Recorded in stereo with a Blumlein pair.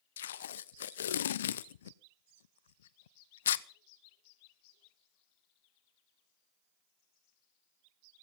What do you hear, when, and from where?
0.2 s tape being pulled: 60° left, 0.7 m